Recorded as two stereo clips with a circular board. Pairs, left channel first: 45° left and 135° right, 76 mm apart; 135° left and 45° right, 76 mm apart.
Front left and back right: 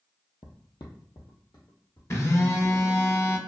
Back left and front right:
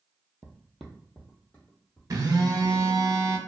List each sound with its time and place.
0.4 s footsteps: 30° left, 0.6 m; by 2.0 s 70° left, 1.4 m
2.1 s a phone buzzing: 5° right, 0.6 m